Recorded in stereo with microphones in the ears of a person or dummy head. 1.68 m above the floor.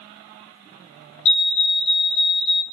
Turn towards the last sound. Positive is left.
turn(degrees=30)  # may be behind; listen again after turning